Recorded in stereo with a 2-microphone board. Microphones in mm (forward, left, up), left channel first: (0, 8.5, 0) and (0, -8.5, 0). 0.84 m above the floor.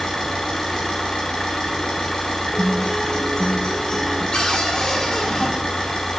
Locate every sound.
0.0 s an engine running: 50° left (ahead or behind), 4.5 m
2.5 s a guitar: 50° left (ahead or behind), 4.5 m
4.3 s a cupboard door: 50° left (ahead or behind), 2 m